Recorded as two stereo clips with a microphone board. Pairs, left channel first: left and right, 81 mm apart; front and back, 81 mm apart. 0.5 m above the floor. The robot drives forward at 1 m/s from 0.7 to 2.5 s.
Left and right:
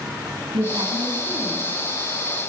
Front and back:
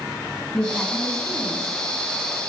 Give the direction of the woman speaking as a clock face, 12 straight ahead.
3 o'clock.